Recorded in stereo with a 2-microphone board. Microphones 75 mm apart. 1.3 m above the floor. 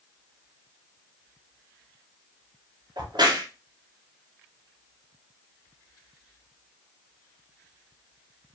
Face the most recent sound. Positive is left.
turn(degrees=-70)  # may be behind; listen again after turning